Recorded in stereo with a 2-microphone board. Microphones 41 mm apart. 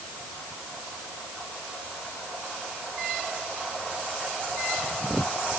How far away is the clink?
No clink in this recording.